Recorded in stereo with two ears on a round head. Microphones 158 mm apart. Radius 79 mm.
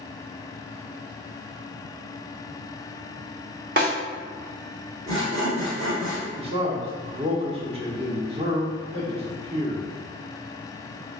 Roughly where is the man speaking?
Right.